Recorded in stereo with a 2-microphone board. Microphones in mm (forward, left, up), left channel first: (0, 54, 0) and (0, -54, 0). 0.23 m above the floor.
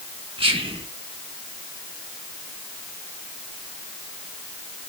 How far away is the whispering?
About 1.9 m.